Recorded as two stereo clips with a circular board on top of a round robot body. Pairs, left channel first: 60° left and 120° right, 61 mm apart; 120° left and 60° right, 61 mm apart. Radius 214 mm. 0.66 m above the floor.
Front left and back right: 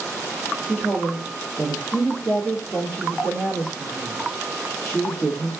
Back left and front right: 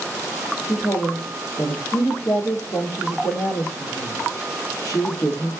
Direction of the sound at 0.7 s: 135° left.